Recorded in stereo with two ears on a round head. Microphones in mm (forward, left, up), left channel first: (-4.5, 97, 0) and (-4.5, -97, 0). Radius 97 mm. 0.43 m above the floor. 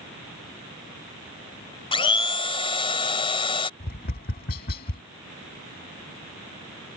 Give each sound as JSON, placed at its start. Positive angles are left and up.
{"t": 1.9, "sound": "a blender", "side_deg": 25}
{"t": 3.8, "sound": "tapping", "side_deg": 45}